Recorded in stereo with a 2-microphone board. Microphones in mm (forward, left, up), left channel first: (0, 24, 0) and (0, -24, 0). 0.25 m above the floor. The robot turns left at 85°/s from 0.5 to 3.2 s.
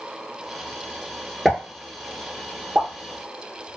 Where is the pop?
Centre (ahead or behind), 0.9 m; by 3.8 s 30° right (ahead or behind), 0.9 m.